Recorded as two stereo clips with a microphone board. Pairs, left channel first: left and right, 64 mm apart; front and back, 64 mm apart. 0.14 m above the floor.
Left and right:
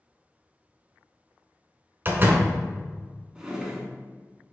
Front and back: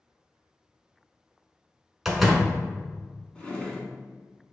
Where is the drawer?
40° right, 0.9 m.